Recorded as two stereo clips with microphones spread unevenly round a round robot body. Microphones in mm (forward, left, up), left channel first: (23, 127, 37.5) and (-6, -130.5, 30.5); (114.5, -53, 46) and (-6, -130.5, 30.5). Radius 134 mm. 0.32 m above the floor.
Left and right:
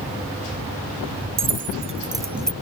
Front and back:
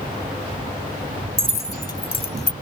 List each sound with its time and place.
1.4 s keys jangling: 40° right; by 2.5 s straight ahead